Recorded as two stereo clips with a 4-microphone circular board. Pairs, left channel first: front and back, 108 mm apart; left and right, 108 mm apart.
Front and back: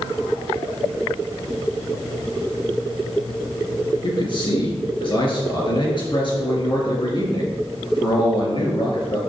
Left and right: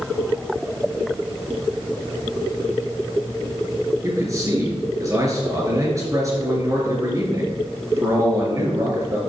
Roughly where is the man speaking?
Ahead right.